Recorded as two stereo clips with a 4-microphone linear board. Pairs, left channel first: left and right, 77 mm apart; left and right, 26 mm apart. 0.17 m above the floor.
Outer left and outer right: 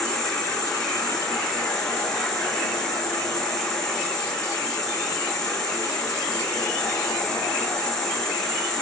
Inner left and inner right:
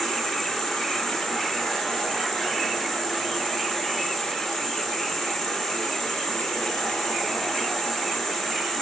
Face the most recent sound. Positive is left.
turn(degrees=10)  # may be behind; listen again after turning